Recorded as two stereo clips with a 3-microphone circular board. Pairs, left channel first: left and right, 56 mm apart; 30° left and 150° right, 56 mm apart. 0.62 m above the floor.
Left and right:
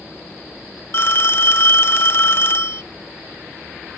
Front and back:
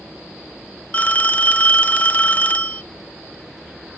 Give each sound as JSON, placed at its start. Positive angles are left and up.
{"t": 0.9, "sound": "a phone ringing", "azimuth_deg": 80, "distance_m": 0.6}